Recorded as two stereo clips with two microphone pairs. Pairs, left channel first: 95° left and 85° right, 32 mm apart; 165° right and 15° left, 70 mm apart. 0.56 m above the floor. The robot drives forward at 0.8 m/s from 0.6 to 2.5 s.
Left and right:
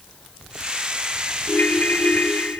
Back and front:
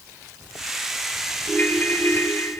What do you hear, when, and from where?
1.5 s a ringtone: 125° left, 2.5 m; by 2.6 s 135° left, 3 m